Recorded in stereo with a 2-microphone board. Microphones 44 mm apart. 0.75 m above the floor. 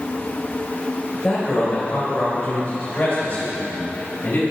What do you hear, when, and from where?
1.1 s a man speaking: 25° left (ahead or behind), 3.5 m; by 4.4 s 65° left (ahead or behind), 6 m